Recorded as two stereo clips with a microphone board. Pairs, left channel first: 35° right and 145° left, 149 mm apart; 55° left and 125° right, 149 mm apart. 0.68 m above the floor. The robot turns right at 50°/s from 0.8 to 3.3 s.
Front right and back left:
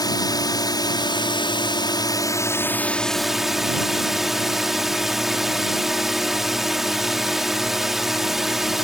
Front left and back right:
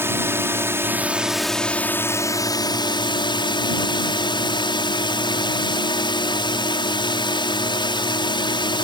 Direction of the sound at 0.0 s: 65° right.